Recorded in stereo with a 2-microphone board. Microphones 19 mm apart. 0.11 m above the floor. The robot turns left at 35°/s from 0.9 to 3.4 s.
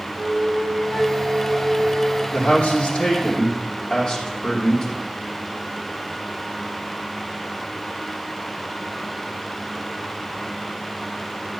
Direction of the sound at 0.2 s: 60° left.